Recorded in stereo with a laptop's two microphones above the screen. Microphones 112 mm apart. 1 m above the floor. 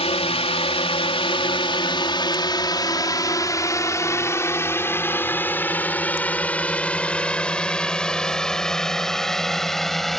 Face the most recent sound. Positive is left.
turn(degrees=0)  # may be behind; listen again after turning